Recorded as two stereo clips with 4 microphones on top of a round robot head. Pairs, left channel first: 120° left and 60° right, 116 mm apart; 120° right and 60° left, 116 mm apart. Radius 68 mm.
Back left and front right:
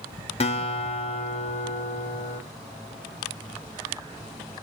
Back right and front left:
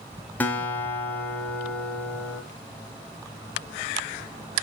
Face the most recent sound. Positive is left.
turn(degrees=160)